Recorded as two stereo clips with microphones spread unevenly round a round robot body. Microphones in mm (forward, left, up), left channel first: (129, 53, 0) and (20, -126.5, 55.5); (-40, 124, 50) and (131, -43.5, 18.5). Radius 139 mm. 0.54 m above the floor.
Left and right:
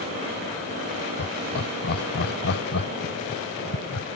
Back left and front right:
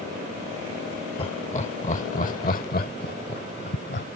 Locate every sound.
1.2 s laughter: 70° left; by 4.1 s 90° left